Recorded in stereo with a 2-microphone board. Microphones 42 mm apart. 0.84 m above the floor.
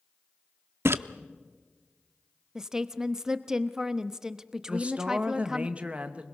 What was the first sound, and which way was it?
A splash, 70° right (ahead or behind).